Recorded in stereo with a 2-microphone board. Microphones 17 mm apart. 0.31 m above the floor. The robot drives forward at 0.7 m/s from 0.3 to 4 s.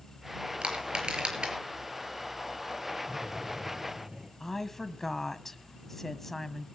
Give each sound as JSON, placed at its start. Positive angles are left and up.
{"t": 0.6, "sound": "crushing", "side_deg": -75, "distance_m": 5.5}
{"t": 3.1, "sound": "breathing", "side_deg": -80, "distance_m": 3.0}
{"t": 4.4, "sound": "a woman speaking", "side_deg": 20, "distance_m": 1.7}